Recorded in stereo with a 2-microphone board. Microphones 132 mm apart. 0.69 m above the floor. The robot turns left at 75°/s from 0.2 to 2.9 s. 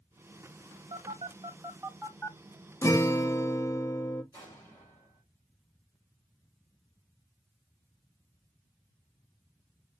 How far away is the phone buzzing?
About 0.8 m.